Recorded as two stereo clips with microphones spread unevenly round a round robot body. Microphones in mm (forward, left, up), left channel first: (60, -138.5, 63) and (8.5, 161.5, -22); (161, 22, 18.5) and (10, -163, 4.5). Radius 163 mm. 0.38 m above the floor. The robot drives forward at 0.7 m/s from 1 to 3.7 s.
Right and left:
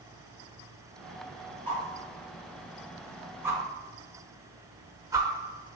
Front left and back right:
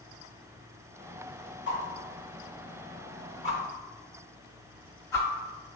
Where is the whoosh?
10° left, 1.4 m; by 5.3 s 125° left, 0.5 m.